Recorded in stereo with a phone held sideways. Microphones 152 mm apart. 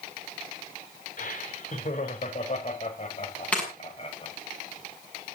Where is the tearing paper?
5° left (ahead or behind), 6.5 m.